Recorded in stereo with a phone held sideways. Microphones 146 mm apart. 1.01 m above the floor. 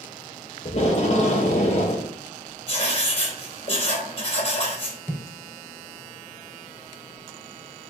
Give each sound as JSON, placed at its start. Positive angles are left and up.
{"t": 0.7, "sound": "tape being pulled", "side_deg": 50, "distance_m": 2.5}
{"t": 2.7, "sound": "writing", "side_deg": 40, "distance_m": 3.5}
{"t": 5.1, "sound": "footsteps", "side_deg": 10, "distance_m": 3.0}